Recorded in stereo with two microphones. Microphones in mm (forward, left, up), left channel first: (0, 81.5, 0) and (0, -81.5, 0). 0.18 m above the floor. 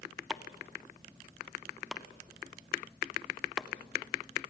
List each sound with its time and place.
0.3 s chopping: 5° right (ahead or behind), 0.9 m